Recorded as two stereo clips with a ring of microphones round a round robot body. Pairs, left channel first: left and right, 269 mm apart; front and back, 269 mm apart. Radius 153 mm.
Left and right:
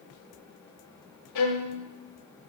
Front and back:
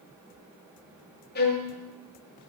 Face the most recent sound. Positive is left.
turn(degrees=60)